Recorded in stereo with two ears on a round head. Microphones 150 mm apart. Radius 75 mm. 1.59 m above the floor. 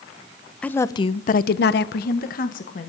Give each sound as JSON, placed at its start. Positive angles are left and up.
{"t": 0.6, "sound": "a woman speaking", "side_deg": 5, "distance_m": 1.0}